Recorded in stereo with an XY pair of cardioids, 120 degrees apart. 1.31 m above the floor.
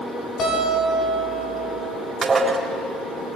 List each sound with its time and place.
0.4 s a guitar: 50° left, 7.5 m
2.2 s dishes clattering: 25° right, 3.5 m